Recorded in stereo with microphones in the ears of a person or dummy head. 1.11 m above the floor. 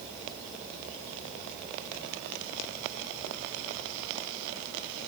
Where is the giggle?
No giggle in this recording.